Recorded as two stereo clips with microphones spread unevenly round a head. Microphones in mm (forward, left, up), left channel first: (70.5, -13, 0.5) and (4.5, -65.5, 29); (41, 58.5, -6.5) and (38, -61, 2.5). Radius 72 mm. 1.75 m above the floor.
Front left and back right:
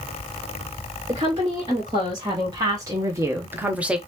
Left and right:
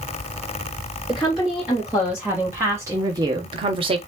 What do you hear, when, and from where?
1.1 s a woman speaking: straight behind, 2 m; by 4.0 s 85° right, 0.9 m